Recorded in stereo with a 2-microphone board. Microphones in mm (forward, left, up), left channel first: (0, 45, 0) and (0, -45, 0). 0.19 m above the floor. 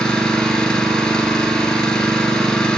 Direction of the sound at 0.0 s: 10° left (ahead or behind).